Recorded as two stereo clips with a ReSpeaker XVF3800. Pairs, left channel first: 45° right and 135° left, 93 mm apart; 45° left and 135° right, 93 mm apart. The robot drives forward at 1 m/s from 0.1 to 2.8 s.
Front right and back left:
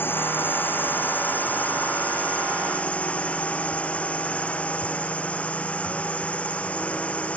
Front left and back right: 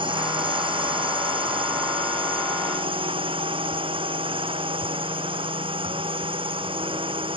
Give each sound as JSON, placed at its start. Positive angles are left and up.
{"t": 0.0, "sound": "a drone", "azimuth_deg": -115}